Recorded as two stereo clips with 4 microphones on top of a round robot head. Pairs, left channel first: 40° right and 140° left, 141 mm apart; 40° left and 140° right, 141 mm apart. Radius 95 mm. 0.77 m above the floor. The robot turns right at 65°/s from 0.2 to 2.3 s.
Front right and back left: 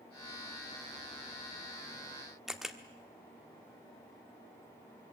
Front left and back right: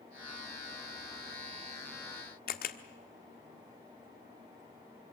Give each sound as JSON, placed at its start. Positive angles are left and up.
{"t": 2.5, "sound": "a camera shutter", "azimuth_deg": 55, "distance_m": 1.3}